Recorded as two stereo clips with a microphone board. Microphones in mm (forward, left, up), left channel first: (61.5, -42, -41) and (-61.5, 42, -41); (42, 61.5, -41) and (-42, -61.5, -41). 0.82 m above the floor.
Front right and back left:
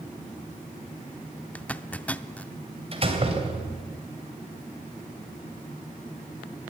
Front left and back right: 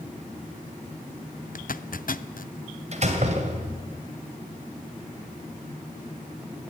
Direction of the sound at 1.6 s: 45° left.